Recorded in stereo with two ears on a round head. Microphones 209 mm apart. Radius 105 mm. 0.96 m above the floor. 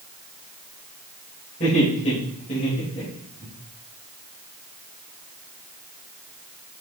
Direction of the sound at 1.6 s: 30° left (ahead or behind).